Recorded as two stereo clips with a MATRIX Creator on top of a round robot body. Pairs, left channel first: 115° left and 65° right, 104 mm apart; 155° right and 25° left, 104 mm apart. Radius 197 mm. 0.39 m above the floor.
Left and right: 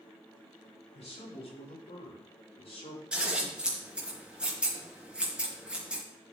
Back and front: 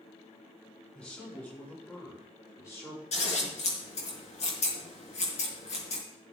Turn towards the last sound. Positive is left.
turn(degrees=-145)